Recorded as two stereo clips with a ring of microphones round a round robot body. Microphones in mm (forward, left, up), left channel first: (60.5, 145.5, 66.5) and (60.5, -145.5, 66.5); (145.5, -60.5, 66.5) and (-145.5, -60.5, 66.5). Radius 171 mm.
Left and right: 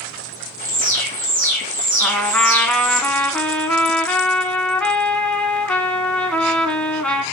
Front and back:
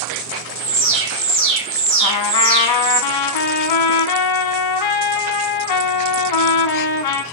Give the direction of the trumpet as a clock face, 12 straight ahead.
12 o'clock.